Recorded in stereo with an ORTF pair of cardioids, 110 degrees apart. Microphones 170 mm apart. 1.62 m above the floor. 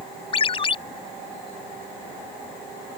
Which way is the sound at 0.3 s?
35° left.